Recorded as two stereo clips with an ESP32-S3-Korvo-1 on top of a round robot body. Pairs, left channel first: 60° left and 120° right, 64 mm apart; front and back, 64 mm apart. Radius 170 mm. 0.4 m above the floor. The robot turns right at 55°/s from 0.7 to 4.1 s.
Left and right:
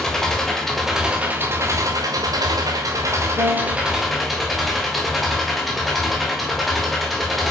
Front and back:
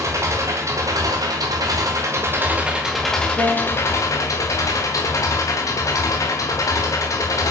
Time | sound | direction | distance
0.0 | an engine running | 145° left | 1.7 m
3.4 | a piano | 115° right | 4 m